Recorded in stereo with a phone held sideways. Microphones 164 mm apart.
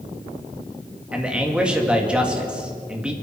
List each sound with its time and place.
1.1 s a man speaking: 5° right (ahead or behind), 2 m